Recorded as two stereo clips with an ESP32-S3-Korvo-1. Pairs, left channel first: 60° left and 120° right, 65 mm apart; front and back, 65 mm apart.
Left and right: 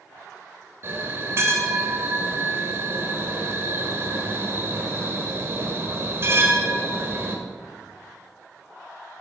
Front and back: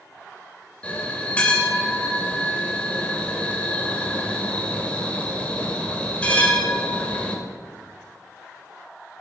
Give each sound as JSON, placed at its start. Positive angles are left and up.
{"t": 0.8, "sound": "a bell", "azimuth_deg": -70, "distance_m": 2.0}